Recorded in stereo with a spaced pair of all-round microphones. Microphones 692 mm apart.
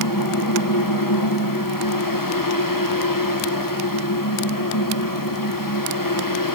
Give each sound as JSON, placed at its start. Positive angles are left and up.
{"t": 0.0, "sound": "a fan", "side_deg": 30, "distance_m": 1.4}